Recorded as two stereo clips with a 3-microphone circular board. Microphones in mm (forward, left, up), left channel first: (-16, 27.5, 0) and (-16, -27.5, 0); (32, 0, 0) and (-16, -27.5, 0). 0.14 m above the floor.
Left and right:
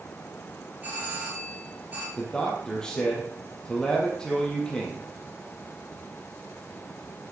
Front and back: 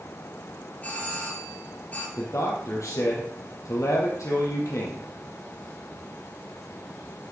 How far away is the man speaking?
About 4 m.